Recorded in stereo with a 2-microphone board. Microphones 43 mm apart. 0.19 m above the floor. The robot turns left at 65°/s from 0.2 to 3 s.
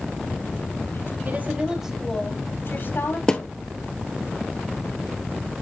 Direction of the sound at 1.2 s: 135° right.